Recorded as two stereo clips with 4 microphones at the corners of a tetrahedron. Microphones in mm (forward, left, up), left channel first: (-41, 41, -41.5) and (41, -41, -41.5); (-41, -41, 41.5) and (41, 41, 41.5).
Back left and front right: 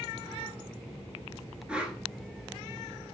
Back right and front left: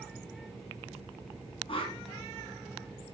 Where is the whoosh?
125° right, 1.3 m.